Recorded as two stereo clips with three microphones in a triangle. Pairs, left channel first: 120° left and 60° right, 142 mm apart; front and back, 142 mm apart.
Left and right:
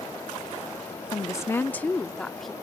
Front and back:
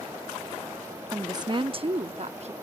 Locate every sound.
1.1 s a woman speaking: 140° left; by 2.5 s 150° right